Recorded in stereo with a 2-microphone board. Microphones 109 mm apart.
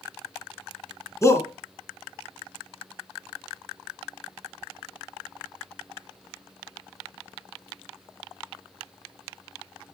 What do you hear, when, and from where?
1.2 s a shout: 25° left (ahead or behind), 2.5 m